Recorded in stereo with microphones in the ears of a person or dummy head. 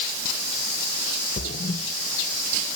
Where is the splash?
45° left (ahead or behind), 1.5 m.